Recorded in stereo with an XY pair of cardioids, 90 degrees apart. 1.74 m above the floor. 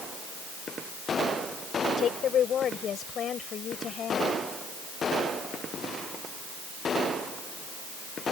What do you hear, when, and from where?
2.0 s a woman speaking: 65° left; by 4.3 s 60° left